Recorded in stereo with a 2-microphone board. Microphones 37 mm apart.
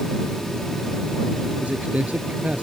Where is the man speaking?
40° right (ahead or behind).